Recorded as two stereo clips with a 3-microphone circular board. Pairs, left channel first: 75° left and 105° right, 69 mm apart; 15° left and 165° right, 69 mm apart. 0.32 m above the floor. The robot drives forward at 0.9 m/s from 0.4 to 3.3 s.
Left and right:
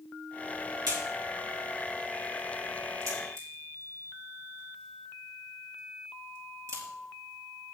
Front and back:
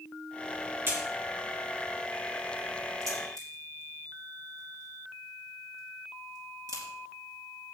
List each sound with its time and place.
0.9 s a crack: 115° right, 3 m; by 7.8 s 140° right, 4.5 m